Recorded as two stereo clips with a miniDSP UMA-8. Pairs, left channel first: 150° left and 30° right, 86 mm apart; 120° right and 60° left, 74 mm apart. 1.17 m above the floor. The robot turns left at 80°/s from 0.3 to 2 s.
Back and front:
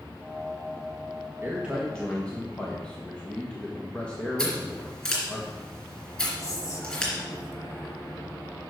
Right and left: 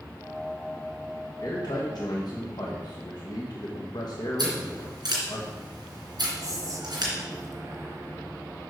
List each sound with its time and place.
1.4 s a man speaking: 85° right, 1.2 m; by 5.4 s 135° right, 1.2 m
4.4 s scissors: 75° left, 3.5 m
6.4 s whispering: 100° left, 1.5 m